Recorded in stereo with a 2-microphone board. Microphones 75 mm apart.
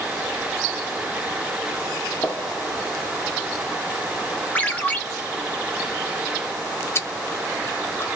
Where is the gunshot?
25° left (ahead or behind), 1.7 m.